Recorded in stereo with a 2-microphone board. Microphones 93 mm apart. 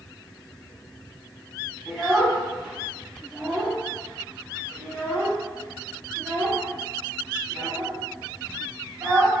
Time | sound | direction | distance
1.9 | a child speaking | centre (ahead or behind) | 1.1 m